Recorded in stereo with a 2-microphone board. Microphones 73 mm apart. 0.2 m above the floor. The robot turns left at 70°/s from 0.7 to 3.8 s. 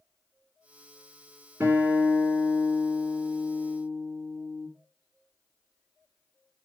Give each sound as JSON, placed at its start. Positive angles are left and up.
{"t": 1.6, "sound": "a guitar", "azimuth_deg": -135, "distance_m": 2.5}